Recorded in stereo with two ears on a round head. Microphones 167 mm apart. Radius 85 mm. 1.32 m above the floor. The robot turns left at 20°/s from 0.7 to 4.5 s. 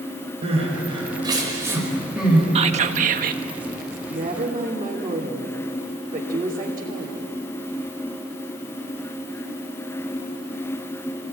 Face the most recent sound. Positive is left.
turn(degrees=-25)  # may be behind; listen again after turning